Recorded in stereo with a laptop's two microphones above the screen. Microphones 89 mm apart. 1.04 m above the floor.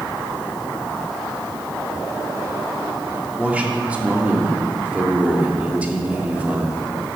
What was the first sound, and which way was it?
A man speaking, 15° right (ahead or behind).